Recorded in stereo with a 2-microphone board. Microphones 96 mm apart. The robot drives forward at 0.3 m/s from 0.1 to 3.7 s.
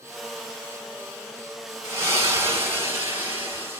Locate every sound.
1.8 s a splash: 30° right (ahead or behind), 1.6 m; by 3.8 s 20° right (ahead or behind), 2 m